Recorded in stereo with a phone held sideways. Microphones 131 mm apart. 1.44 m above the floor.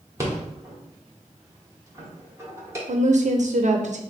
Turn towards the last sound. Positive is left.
turn(degrees=-65)  # may be behind; listen again after turning